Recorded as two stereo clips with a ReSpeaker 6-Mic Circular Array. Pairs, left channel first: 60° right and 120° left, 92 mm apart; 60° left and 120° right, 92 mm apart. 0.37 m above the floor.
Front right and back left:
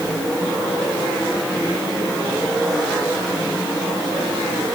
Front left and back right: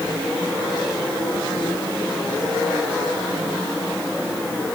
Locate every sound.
Only background noise.